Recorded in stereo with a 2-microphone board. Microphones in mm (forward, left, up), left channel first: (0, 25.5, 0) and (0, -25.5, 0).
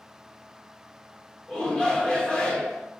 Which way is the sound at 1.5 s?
15° left (ahead or behind).